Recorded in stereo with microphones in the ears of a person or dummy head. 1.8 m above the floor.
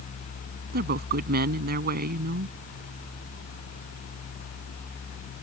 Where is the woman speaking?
50° right (ahead or behind).